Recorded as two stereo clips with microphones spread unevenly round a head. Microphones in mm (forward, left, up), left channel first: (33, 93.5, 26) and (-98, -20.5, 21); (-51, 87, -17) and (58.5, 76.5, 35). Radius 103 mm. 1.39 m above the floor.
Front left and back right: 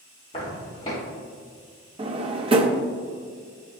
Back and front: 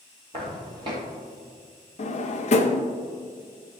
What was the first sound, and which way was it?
Footsteps, 15° right.